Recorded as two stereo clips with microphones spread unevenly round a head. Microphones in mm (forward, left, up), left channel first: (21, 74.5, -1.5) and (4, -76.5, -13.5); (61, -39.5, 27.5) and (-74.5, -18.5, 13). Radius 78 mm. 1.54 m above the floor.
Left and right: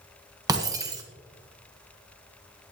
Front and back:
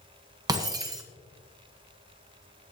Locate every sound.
0.5 s breaking glass: 145° right, 1.6 m